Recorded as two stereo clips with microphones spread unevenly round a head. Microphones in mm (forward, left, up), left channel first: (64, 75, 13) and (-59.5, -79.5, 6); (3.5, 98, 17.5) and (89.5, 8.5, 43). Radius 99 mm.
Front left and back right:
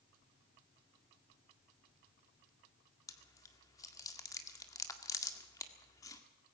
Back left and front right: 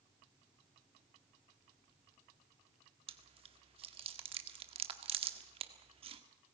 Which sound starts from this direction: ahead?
Chewing, at 3.1 s.